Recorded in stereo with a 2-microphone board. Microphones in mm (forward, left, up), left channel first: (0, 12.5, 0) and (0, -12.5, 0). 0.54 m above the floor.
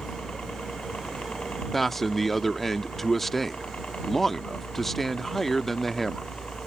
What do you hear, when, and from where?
0.0 s a helicopter: 60° left (ahead or behind)
1.7 s a man speaking: 10° left (ahead or behind)